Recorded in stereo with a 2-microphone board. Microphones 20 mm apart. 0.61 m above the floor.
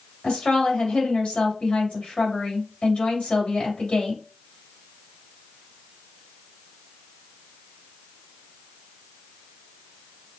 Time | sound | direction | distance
0.2 | a woman speaking | 70° left (ahead or behind) | 3 m